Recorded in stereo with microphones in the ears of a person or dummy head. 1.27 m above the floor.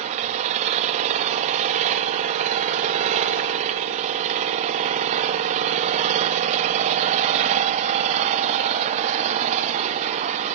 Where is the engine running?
40° right (ahead or behind), 1.2 m.